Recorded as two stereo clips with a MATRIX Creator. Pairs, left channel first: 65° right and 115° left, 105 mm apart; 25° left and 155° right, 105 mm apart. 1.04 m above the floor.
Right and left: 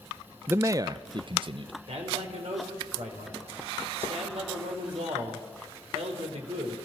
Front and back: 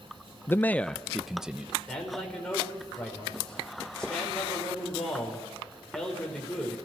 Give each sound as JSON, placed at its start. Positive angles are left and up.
{"t": 0.5, "sound": "a man speaking", "azimuth_deg": 65, "distance_m": 0.5}
{"t": 1.9, "sound": "a man speaking", "azimuth_deg": 105, "distance_m": 4.5}